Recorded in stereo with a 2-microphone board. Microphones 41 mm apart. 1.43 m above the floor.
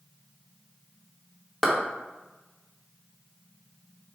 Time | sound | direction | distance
1.6 | a clap | 5° left (ahead or behind) | 1.0 m